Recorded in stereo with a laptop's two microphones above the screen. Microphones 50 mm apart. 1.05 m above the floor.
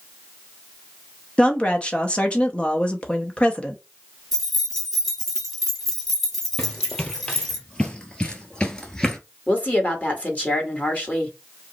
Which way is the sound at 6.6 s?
15° left (ahead or behind).